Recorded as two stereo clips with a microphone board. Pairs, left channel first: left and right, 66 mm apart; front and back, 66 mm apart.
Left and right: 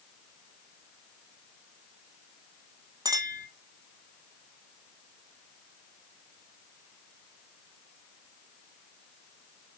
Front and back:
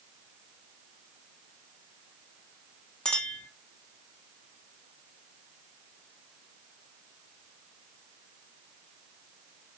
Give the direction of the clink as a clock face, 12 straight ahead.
3 o'clock.